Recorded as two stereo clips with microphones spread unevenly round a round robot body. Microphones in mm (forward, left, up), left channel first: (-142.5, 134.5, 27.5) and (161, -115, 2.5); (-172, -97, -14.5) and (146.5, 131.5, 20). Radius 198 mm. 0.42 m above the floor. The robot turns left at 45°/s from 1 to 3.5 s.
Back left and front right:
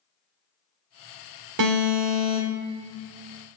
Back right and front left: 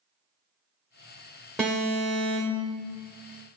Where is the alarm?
60° right, 0.7 m; by 2.7 s 110° right, 0.7 m.